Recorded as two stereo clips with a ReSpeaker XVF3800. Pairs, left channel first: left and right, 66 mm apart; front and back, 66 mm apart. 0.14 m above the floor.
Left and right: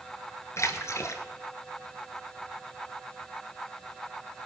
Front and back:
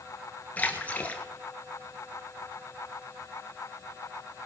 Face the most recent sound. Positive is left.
turn(degrees=65)